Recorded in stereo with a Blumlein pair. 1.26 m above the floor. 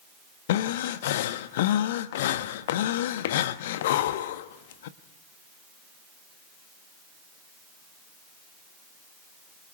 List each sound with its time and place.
0.5 s breathing: 55° left, 1.2 m